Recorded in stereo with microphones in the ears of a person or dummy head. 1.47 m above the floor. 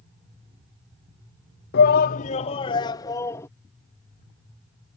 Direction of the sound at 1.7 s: 60° left (ahead or behind).